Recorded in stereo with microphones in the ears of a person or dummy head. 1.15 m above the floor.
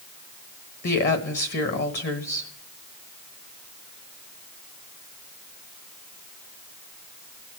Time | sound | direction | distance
0.8 | a woman speaking | 45° left (ahead or behind) | 1.4 m